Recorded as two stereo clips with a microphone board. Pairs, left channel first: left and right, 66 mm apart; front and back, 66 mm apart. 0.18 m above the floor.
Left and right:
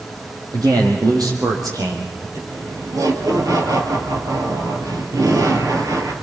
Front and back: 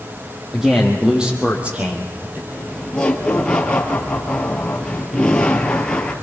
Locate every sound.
0.5 s a man speaking: 95° right, 6 m; by 2.4 s 125° right, 5 m
2.5 s laughter: 75° right, 3.5 m